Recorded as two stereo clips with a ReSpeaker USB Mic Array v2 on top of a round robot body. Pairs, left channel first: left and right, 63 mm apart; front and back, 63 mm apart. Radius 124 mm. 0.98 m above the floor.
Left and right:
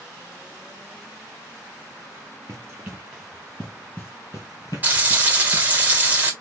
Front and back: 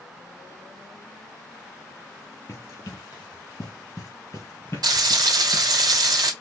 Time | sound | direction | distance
2.5 | running footsteps | 45° right | 1.1 m
4.8 | frying | 155° right | 1.8 m